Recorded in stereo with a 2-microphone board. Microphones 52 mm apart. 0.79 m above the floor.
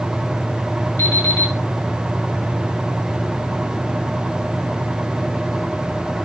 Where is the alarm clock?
65° left (ahead or behind), 3.5 m.